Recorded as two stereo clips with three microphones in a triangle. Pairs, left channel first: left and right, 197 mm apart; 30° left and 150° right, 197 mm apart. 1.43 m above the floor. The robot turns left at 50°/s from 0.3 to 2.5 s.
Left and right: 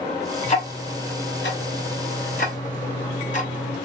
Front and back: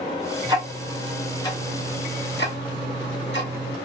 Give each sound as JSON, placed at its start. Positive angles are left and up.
{"t": 0.4, "sound": "ticking", "azimuth_deg": 150, "distance_m": 1.0}